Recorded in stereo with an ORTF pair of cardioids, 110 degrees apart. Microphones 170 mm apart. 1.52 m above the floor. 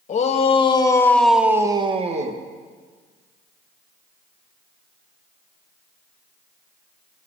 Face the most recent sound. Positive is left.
turn(degrees=-50)